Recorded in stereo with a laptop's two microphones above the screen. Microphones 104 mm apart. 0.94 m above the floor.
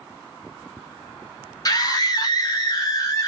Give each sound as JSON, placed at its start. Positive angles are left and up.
{"t": 1.6, "sound": "a scream", "side_deg": 35, "distance_m": 1.1}